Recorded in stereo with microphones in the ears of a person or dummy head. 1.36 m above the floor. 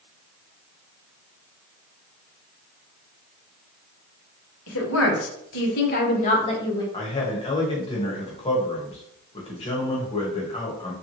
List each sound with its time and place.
4.7 s a woman speaking: 85° left, 1.2 m; by 6.8 s 20° left (ahead or behind), 1.1 m
6.9 s a man speaking: 25° left (ahead or behind), 1.2 m